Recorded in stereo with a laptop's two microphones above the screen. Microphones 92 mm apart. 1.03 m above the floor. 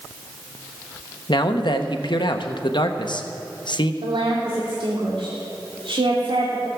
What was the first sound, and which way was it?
A man speaking, 60° left (ahead or behind).